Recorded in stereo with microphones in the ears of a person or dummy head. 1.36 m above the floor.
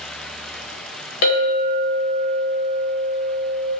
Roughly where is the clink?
Left.